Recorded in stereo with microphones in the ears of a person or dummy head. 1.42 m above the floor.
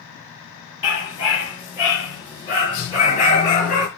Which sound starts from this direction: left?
A dog barking, at 0.8 s.